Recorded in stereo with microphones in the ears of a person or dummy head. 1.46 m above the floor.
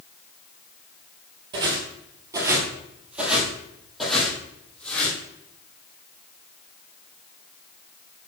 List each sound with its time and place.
1.5 s footsteps: 25° right (ahead or behind), 1.6 m; by 5.2 s 10° left (ahead or behind), 2.5 m